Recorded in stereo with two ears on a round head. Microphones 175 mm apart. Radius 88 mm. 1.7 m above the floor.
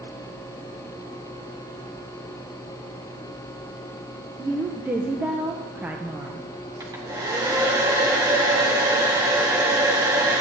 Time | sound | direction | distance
4.4 | a woman speaking | 10° right (ahead or behind) | 0.8 m
6.8 | a hair dryer | 20° right (ahead or behind) | 1.8 m